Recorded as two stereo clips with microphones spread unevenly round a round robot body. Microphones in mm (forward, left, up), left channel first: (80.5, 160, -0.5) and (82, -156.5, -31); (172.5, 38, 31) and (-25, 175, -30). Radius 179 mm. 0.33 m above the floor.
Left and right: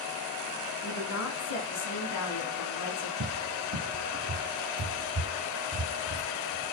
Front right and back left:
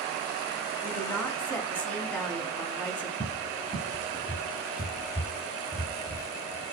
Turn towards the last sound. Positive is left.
turn(degrees=-115)